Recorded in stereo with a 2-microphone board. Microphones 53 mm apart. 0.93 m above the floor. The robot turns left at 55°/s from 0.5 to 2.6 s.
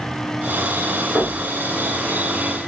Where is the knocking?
10° right (ahead or behind), 1.5 m; by 1.4 s 25° right (ahead or behind), 1.5 m.